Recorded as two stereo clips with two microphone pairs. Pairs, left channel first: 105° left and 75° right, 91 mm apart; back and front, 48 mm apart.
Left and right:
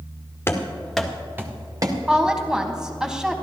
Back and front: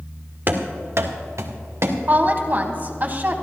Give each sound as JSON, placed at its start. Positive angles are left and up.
{"t": 0.5, "sound": "running footsteps", "azimuth_deg": 45, "distance_m": 1.6}
{"t": 2.1, "sound": "a woman speaking", "azimuth_deg": 5, "distance_m": 1.4}